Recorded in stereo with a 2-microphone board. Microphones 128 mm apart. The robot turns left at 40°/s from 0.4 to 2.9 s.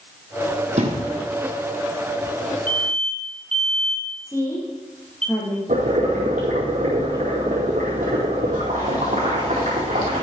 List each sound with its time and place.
0.8 s a thud: 65° right (ahead or behind), 2.5 m; by 1.1 s 55° right (ahead or behind), 2.5 m
2.7 s an alarm: 15° left (ahead or behind), 2.5 m; by 5.3 s 5° left (ahead or behind), 2.5 m
4.3 s a woman speaking: 20° left (ahead or behind), 4.5 m
5.7 s boiling: 75° right (ahead or behind), 4.5 m